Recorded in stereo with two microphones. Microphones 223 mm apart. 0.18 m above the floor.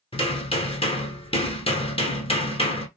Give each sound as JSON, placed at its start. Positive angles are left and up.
{"t": 0.1, "sound": "hammering", "side_deg": 25, "distance_m": 0.7}